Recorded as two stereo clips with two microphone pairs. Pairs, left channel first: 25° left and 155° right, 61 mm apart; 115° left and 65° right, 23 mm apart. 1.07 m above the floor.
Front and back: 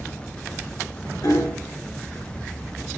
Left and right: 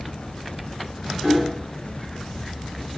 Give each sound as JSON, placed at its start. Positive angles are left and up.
{"t": 1.2, "sound": "hammering", "azimuth_deg": 40, "distance_m": 3.5}